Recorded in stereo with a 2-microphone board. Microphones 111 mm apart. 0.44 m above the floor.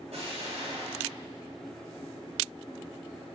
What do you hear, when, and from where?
0.1 s an explosion: 70° right (ahead or behind), 3 m